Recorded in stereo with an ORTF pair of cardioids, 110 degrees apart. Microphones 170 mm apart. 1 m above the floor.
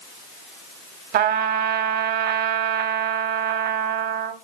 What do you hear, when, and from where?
1.1 s a trumpet: 70° right, 1.2 m